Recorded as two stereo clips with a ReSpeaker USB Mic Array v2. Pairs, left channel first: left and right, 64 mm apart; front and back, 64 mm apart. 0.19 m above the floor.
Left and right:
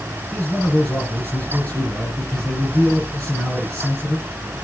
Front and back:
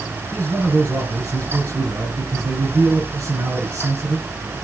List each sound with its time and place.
0.3 s a man speaking: 145° left, 3 m